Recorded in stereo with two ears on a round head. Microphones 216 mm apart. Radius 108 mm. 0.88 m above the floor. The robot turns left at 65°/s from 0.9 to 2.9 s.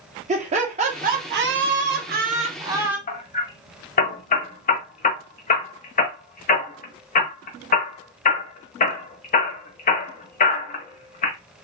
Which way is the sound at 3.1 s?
35° left (ahead or behind).